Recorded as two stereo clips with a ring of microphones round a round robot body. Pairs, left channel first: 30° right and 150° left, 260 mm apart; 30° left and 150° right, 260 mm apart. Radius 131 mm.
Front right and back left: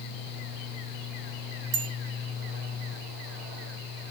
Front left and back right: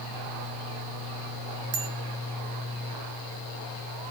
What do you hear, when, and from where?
1.7 s a bicycle bell: 175° right, 4 m